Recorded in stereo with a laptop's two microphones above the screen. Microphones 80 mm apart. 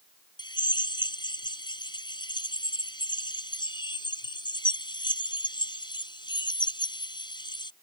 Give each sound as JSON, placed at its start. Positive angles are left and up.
{"t": 0.4, "sound": "a drill", "side_deg": 75}